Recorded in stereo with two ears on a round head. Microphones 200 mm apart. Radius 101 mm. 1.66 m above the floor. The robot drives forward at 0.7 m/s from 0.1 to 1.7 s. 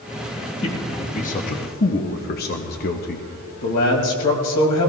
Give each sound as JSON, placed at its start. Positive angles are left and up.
{"t": 0.6, "sound": "a man speaking", "side_deg": 25, "distance_m": 1.4}
{"t": 3.6, "sound": "a man speaking", "side_deg": 80, "distance_m": 3.0}